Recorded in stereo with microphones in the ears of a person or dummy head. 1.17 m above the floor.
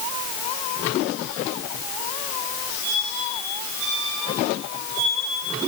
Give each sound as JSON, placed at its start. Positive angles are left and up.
{"t": 2.8, "sound": "a squeak", "side_deg": -80, "distance_m": 5.5}